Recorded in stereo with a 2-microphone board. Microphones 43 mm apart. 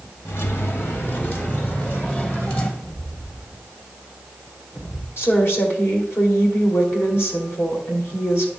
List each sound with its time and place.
0.2 s keys jangling: 65° left (ahead or behind), 1.0 m; by 2.7 s 40° left (ahead or behind), 1.9 m
2.8 s footsteps: 75° left (ahead or behind), 2 m; by 5.1 s 45° left (ahead or behind), 1.7 m
5.2 s a woman speaking: 65° left (ahead or behind), 2 m